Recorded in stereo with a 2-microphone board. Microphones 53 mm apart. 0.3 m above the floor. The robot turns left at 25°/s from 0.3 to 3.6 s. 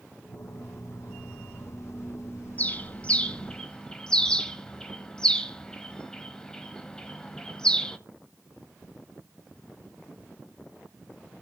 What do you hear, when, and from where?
2.6 s a bird: 30° left (ahead or behind), 1.1 m; by 8.0 s 15° left (ahead or behind), 1.1 m